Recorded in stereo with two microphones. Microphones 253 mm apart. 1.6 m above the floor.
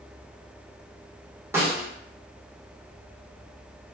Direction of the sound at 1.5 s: 10° right (ahead or behind).